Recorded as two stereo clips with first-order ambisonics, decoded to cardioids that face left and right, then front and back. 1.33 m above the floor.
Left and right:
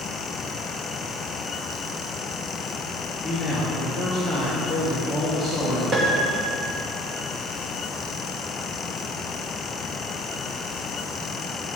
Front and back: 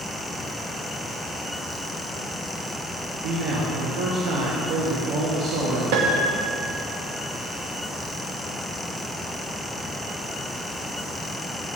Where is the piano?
165° right, 1.0 m.